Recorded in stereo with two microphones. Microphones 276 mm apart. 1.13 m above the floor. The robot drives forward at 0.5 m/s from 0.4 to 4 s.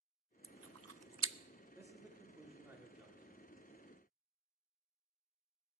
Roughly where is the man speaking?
Centre.